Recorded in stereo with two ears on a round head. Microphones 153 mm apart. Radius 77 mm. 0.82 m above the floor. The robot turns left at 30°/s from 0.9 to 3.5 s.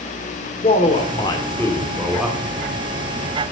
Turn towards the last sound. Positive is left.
turn(degrees=-45)